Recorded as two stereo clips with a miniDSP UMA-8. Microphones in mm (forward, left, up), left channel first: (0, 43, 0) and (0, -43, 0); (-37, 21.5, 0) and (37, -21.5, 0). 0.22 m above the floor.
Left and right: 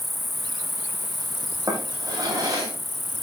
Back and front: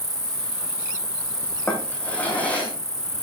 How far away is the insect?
About 1.0 m.